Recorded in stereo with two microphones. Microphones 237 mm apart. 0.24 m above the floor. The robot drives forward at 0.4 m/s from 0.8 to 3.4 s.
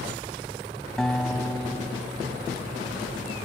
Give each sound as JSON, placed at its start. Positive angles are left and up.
{"t": 1.0, "sound": "a guitar", "side_deg": 5, "distance_m": 0.9}